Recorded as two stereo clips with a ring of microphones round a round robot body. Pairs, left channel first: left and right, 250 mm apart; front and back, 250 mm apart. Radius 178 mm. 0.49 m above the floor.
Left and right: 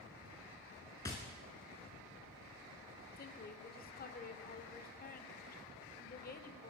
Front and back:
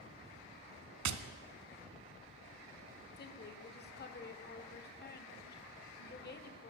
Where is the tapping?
170° left, 0.8 m.